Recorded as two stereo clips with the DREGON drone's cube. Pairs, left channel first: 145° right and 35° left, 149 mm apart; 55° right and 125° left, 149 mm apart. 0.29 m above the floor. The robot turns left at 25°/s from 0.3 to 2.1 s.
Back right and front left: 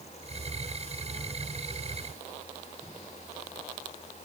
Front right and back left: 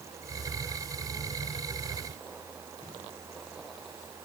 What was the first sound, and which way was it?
Only background noise.